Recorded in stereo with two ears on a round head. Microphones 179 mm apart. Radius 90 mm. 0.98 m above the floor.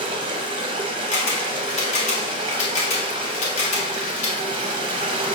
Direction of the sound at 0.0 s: 25° right (ahead or behind).